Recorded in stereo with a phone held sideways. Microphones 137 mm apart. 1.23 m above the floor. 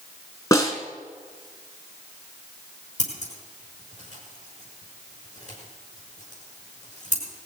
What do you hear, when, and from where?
0.5 s a snare drum: 25° left (ahead or behind), 2.5 m
3.0 s scissors: 60° left (ahead or behind), 6.5 m